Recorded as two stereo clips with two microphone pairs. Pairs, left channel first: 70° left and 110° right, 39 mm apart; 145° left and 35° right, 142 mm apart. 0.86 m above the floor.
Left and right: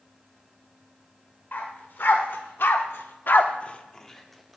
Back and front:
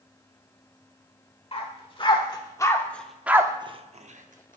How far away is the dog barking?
About 1.3 m.